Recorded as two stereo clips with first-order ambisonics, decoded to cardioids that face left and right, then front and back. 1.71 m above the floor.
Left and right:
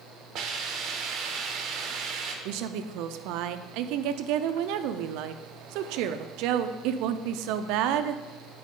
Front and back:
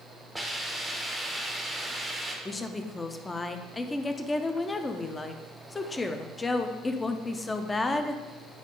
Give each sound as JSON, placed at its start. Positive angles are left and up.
{"t": 0.3, "sound": "a hiss", "azimuth_deg": -90, "distance_m": 0.9}
{"t": 2.5, "sound": "a woman speaking", "azimuth_deg": -75, "distance_m": 0.5}